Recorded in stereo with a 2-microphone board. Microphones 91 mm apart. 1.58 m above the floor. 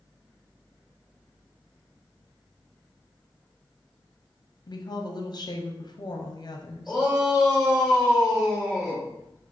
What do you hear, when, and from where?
4.7 s a woman speaking: 50° left (ahead or behind), 0.7 m
6.9 s a shout: 5° right (ahead or behind), 2 m